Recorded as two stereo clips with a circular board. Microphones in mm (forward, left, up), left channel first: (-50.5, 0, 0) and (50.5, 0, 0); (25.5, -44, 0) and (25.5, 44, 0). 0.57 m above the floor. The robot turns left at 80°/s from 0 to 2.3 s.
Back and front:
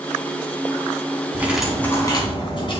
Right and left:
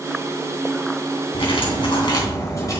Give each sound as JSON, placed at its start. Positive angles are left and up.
{"t": 1.3, "sound": "cutlery clinking", "azimuth_deg": -65, "distance_m": 3.0}